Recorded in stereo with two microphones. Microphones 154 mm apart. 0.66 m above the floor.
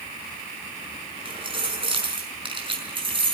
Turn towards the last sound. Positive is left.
turn(degrees=-35)  # may be behind; listen again after turning